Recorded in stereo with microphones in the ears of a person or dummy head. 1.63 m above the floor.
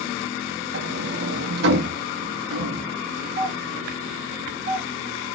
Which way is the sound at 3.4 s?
45° right (ahead or behind).